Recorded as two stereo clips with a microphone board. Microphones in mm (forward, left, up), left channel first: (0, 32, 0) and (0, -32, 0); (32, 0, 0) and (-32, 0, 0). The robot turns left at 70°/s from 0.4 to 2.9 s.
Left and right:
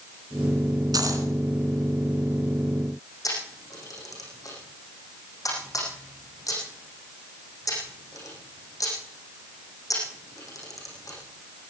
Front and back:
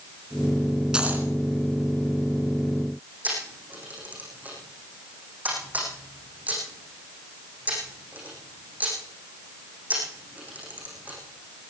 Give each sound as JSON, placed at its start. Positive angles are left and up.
{"t": 0.9, "sound": "a dropped coin", "azimuth_deg": -105, "distance_m": 2.5}
{"t": 3.2, "sound": "a camera shutter", "azimuth_deg": 115, "distance_m": 7.5}